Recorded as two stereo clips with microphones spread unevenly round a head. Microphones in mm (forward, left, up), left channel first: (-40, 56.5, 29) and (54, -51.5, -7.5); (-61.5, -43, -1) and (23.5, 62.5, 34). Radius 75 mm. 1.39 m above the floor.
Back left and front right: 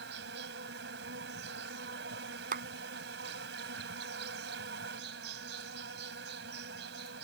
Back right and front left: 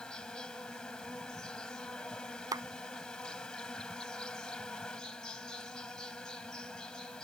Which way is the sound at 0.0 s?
40° right.